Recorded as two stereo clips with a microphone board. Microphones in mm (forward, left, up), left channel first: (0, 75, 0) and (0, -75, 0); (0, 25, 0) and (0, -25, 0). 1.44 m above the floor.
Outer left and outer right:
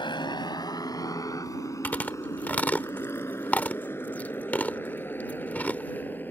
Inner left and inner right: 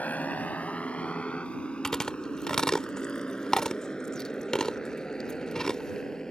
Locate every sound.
0.0 s a motorcycle: 30° left (ahead or behind); by 6.3 s 10° left (ahead or behind)
1.8 s chewing: 10° left (ahead or behind)